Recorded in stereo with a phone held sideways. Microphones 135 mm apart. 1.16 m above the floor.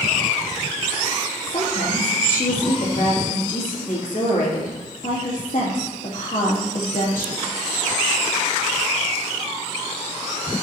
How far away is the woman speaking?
About 2.5 m.